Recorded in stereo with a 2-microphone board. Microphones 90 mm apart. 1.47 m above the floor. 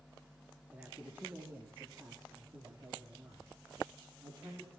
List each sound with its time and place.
0.7 s a man speaking: 15° right (ahead or behind), 3.5 m; by 4.7 s 45° right (ahead or behind), 5 m